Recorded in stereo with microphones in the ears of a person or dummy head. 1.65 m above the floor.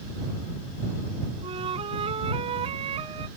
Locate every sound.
1.4 s a flute: 30° right (ahead or behind)